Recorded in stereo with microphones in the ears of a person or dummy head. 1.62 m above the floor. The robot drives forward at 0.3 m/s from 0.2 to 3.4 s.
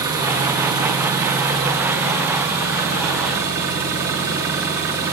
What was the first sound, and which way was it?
An engine running, 15° right (ahead or behind).